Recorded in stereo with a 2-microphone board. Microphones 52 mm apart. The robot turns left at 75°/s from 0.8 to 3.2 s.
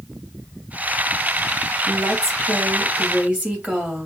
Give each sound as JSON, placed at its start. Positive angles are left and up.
{"t": 1.9, "sound": "a woman speaking", "azimuth_deg": -50, "distance_m": 2.5}